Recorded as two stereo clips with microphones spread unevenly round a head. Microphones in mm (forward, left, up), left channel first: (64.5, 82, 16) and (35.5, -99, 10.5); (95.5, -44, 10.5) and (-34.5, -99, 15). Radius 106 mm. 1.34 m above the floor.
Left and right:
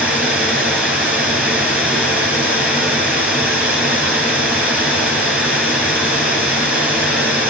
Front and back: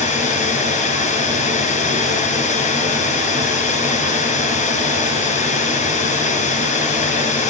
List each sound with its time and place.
0.0 s running water: 15° right, 7 m